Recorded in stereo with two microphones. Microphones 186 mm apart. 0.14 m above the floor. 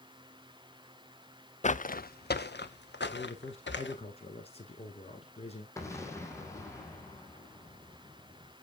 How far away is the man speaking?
About 1.6 m.